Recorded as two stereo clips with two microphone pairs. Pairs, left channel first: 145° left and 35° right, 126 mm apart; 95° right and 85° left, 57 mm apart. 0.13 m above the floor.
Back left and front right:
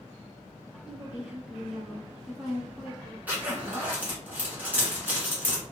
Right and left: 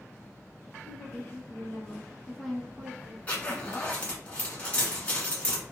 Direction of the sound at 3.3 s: 90° right.